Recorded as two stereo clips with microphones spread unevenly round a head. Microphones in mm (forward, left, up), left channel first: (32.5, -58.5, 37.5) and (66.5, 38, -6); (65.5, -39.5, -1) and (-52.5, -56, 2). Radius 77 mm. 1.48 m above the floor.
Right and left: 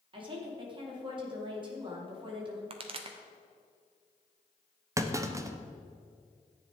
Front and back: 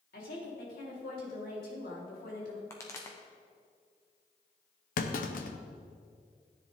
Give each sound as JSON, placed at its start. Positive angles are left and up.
{"t": 0.1, "sound": "a woman speaking", "azimuth_deg": 35, "distance_m": 3.5}
{"t": 2.7, "sound": "a pop", "azimuth_deg": 80, "distance_m": 1.0}
{"t": 5.0, "sound": "a clunk", "azimuth_deg": 15, "distance_m": 0.9}